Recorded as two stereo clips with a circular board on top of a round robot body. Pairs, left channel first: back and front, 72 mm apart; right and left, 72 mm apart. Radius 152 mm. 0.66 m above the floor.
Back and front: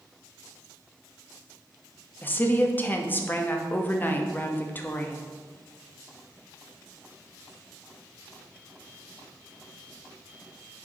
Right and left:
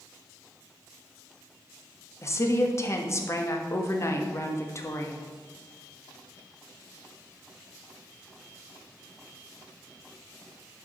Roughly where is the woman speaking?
Behind right.